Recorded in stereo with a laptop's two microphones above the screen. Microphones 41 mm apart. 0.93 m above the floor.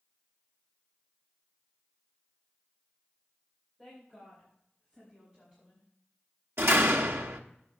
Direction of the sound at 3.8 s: 10° right (ahead or behind).